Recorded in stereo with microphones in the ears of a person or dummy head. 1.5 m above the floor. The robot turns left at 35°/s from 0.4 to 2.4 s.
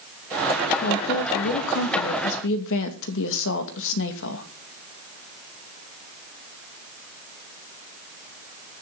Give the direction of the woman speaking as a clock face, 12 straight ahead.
8 o'clock.